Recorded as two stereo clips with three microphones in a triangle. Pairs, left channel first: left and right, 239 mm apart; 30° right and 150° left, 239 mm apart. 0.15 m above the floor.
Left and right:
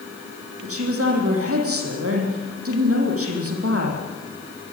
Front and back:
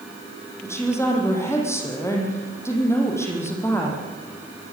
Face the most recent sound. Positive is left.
turn(degrees=-110)